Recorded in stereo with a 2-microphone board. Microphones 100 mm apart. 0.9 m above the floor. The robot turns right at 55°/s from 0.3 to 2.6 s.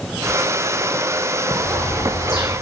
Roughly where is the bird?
Ahead.